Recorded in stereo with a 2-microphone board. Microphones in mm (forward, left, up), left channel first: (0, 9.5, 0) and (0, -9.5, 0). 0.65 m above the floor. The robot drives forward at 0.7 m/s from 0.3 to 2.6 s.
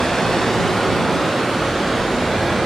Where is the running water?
35° left (ahead or behind), 0.7 m; by 2.7 s 10° left (ahead or behind), 2 m.